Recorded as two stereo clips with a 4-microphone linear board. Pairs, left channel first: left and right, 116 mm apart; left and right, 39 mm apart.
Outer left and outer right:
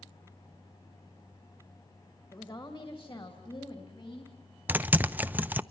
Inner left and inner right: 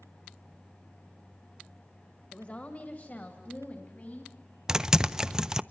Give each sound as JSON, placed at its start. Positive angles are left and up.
{"t": 2.3, "sound": "a woman speaking", "side_deg": 40, "distance_m": 2.0}
{"t": 4.7, "sound": "typing on a keyboard", "side_deg": -15, "distance_m": 0.5}